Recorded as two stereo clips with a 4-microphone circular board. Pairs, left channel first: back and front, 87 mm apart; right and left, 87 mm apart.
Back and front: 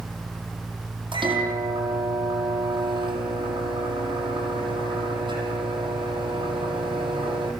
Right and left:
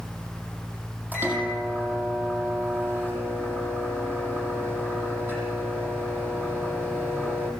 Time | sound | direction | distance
1.1 | a microwave | 20° left | 8 m